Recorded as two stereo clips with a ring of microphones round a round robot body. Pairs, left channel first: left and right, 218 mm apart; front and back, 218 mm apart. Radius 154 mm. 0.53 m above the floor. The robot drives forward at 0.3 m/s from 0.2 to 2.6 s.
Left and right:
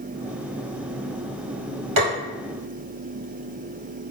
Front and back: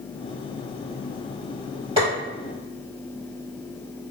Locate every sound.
2.0 s tapping: 105° right, 1.6 m